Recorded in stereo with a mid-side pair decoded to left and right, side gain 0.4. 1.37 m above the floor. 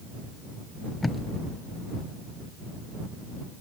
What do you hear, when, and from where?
1.0 s tape being pulled: 25° left